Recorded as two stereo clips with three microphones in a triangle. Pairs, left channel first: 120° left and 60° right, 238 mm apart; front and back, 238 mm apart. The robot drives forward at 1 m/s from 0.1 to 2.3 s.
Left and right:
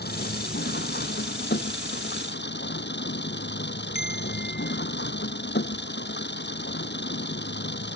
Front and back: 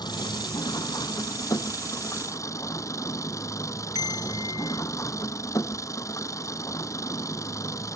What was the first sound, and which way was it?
An engine running, 75° left.